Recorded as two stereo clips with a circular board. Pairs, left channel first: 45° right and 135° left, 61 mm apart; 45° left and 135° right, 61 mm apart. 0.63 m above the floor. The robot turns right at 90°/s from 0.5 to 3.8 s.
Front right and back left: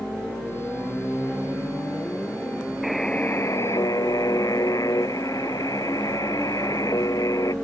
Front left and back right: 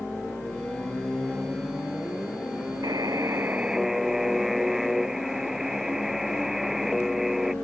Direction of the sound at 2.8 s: 140° right.